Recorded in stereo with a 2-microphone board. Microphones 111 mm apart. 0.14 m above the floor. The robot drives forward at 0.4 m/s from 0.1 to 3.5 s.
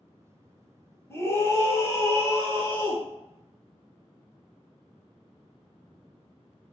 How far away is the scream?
About 1.1 m.